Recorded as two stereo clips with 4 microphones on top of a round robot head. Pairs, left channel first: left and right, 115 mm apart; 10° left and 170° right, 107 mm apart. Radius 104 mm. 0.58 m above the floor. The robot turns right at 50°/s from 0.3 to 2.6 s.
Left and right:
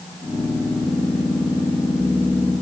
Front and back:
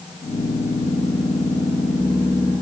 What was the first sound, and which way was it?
Only background noise.